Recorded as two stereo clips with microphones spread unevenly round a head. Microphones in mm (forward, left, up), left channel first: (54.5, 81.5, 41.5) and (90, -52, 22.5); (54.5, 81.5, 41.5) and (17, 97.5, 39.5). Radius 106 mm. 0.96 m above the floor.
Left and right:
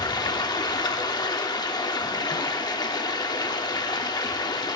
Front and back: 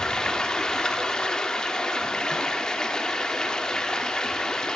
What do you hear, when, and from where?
0.0 s running water: 45° left, 1.2 m